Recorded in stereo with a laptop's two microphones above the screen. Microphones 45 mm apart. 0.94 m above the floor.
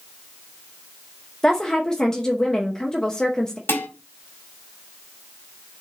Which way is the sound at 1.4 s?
15° left (ahead or behind).